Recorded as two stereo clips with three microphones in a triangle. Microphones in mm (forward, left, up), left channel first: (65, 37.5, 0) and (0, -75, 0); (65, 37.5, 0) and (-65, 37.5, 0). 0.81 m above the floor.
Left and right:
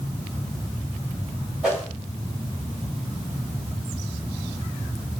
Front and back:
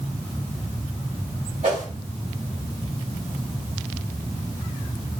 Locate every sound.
1.6 s a whoosh: 155° left, 1.5 m